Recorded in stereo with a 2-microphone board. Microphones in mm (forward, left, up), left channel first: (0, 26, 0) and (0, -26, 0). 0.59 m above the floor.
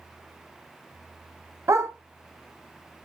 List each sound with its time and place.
1.7 s a dog barking: 65° right (ahead or behind), 0.7 m